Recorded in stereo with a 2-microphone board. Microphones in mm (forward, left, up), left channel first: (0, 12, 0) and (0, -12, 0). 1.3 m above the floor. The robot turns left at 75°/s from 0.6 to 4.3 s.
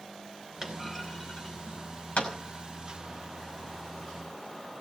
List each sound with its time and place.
0.6 s a clunk: 20° right (ahead or behind), 5.5 m; by 2.3 s 75° left (ahead or behind), 5.5 m